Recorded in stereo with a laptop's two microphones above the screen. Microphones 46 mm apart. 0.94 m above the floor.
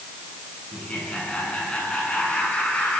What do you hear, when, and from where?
0.7 s laughter: 25° left (ahead or behind), 9.5 m